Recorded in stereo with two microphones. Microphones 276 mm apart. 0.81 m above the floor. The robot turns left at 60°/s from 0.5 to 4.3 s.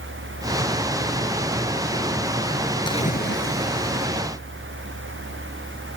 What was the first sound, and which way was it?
A splash, 165° left.